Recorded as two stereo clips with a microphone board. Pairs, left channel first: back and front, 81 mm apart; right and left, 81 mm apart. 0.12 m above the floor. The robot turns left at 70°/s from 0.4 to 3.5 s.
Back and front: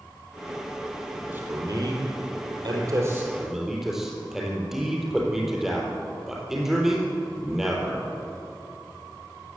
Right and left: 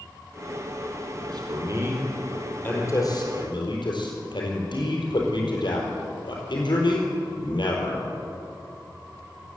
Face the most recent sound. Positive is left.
turn(degrees=-85)